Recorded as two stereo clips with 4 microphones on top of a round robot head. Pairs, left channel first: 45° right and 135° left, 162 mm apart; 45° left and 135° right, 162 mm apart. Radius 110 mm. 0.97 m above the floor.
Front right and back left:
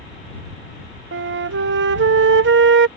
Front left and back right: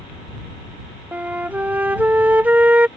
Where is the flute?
145° left.